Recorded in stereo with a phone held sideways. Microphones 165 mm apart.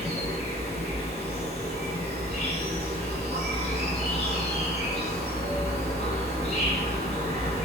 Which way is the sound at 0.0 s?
45° left (ahead or behind).